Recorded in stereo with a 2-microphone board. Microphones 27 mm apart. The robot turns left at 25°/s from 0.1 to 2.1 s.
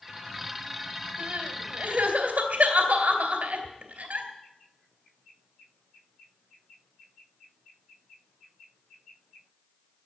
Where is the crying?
70° right (ahead or behind), 3.5 m; by 4.3 s 60° right (ahead or behind), 3.5 m.